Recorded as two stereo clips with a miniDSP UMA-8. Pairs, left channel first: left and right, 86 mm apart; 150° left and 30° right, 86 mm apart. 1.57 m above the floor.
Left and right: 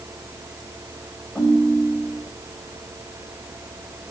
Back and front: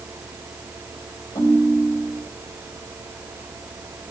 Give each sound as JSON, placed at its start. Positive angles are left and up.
{"t": 1.4, "sound": "a ringtone", "azimuth_deg": 170, "distance_m": 5.0}